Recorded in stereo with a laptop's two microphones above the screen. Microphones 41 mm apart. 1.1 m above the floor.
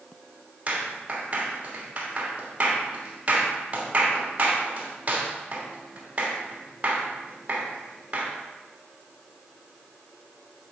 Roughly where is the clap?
Right.